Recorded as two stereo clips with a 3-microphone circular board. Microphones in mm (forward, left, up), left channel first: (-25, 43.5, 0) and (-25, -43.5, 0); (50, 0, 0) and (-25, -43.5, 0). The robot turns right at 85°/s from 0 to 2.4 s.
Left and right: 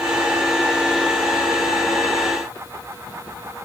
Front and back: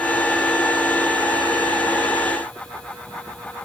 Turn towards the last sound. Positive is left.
No sound to turn to.